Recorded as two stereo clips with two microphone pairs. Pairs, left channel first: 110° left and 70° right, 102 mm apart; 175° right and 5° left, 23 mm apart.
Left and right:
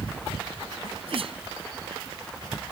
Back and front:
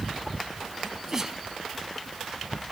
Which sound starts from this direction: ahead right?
A sneeze, at 0.8 s.